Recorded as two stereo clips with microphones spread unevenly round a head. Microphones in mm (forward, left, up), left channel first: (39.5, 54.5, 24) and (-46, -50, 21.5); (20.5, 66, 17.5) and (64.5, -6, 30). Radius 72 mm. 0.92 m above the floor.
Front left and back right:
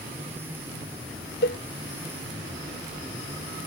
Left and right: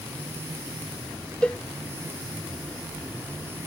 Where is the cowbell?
40° left.